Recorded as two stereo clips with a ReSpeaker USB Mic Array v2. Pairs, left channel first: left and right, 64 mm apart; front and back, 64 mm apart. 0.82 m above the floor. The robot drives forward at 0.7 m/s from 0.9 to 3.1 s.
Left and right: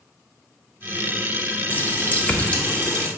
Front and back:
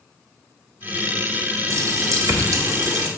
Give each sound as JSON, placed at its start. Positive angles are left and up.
{"t": 1.7, "sound": "a running tap", "azimuth_deg": 145, "distance_m": 0.9}